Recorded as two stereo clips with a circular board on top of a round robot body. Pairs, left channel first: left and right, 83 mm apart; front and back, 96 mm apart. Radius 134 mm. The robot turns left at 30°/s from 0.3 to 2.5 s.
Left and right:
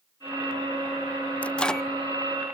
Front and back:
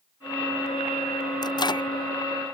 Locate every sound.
1.4 s a microwave: 20° left; by 1.9 s 5° left